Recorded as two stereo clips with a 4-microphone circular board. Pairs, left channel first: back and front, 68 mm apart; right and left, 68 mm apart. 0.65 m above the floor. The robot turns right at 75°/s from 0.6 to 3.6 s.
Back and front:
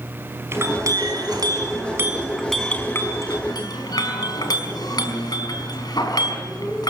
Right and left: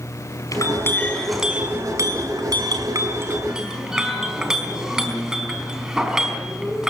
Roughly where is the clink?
Ahead right.